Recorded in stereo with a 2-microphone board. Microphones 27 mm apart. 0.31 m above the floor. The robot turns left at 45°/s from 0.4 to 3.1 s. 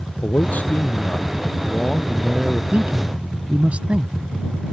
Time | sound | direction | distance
0.2 | a man speaking | 90° left | ?
2.7 | a man speaking | 60° right (ahead or behind) | ?